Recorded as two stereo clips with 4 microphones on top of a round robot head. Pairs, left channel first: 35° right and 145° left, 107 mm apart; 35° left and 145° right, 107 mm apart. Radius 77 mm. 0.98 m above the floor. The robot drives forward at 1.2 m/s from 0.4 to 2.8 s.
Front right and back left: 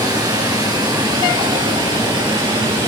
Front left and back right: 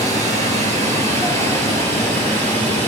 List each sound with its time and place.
0.0 s running water: 160° right, 10 m; by 2.9 s 165° right, 12.5 m